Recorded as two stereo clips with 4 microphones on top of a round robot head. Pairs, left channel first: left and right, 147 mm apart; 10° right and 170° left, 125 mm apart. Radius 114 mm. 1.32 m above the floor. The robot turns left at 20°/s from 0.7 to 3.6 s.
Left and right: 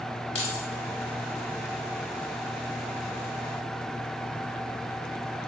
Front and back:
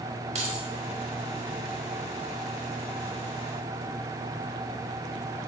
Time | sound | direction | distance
0.3 | keys jangling | 135° left | 1.9 m